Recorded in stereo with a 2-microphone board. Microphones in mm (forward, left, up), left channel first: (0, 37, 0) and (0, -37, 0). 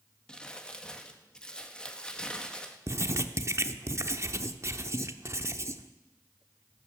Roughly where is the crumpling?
Centre.